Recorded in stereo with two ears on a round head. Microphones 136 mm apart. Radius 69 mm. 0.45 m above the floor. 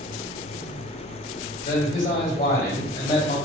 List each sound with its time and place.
1.6 s a man speaking: 50° left (ahead or behind), 1.9 m